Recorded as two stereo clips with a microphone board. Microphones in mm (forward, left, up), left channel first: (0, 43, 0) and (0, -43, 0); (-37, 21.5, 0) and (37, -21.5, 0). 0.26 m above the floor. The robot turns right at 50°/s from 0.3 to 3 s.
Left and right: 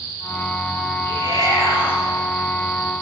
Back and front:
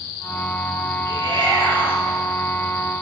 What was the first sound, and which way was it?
A shout, 70° right.